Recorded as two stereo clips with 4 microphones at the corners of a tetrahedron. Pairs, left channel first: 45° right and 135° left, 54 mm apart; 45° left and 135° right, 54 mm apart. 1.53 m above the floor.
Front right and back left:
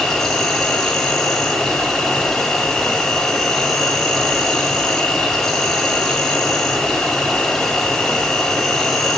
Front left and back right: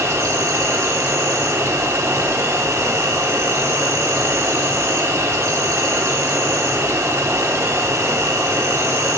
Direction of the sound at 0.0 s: 130° right.